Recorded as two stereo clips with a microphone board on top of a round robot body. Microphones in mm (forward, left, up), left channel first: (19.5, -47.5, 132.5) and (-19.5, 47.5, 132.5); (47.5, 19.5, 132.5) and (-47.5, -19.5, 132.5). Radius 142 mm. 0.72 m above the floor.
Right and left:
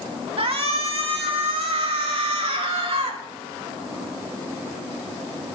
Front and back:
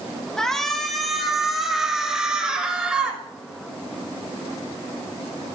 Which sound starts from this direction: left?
A shout, at 0.4 s.